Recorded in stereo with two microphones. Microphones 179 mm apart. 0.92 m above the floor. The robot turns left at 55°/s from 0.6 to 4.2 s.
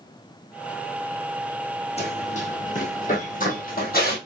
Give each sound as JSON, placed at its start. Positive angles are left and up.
{"t": 2.0, "sound": "running footsteps", "side_deg": 35, "distance_m": 2.5}